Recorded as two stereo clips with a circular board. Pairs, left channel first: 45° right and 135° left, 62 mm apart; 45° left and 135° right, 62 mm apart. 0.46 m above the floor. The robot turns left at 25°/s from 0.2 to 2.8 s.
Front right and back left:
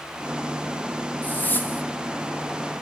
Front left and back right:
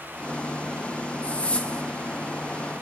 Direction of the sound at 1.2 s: 5° right.